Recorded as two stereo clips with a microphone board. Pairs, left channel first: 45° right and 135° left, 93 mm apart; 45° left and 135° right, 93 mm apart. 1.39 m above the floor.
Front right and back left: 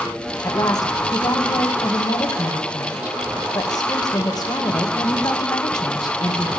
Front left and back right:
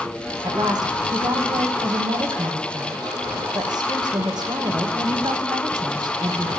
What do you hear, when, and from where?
0.4 s a woman speaking: 90° right, 1.8 m